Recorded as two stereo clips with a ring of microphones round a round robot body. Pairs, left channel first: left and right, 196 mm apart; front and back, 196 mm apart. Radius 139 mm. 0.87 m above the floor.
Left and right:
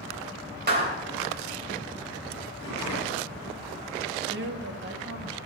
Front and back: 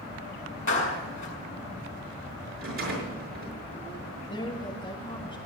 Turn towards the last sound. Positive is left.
turn(degrees=-70)